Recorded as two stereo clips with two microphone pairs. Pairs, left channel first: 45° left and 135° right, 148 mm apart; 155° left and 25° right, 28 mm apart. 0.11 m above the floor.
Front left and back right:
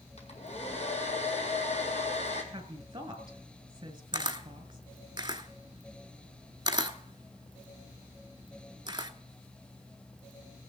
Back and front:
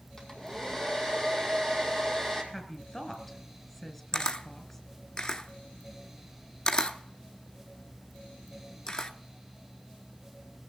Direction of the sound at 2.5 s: 145° right.